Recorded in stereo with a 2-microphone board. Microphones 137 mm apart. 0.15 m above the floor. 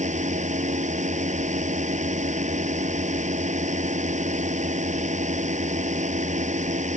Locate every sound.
0.0 s a drone: 60° right (ahead or behind)